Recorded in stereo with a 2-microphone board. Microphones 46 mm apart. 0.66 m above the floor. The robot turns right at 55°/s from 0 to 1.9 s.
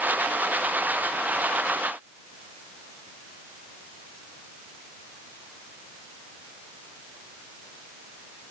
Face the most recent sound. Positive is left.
No sound to turn to.